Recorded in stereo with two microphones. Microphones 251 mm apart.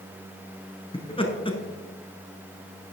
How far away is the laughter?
About 1.4 m.